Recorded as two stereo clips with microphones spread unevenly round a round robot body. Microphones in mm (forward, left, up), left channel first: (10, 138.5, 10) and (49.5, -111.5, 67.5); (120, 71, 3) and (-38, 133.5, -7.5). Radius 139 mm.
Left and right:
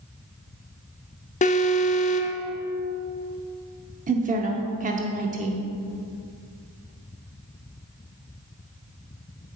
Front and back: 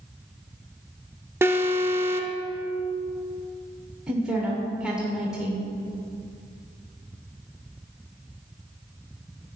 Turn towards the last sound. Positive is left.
turn(degrees=-130)